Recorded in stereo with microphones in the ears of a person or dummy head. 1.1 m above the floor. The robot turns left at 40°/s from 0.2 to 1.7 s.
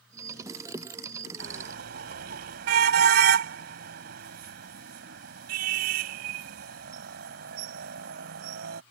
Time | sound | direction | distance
1.4 | a car horn | 75° right (ahead or behind) | ?